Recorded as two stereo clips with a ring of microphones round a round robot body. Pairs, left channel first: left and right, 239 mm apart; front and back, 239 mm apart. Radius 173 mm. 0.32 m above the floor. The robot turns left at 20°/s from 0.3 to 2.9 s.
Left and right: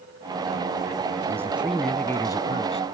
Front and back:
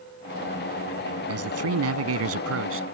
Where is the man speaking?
170° right; by 2.8 s 160° left.